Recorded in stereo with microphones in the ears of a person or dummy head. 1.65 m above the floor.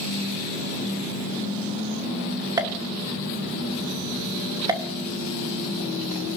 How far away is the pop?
About 1.0 m.